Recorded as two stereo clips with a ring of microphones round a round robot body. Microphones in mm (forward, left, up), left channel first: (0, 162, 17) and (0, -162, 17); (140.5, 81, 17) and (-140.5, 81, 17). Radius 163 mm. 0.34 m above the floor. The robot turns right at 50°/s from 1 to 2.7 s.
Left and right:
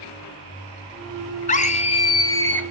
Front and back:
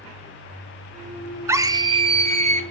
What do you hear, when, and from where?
1.5 s a scream: 110° left, 1.3 m; by 2.6 s 170° left, 1.3 m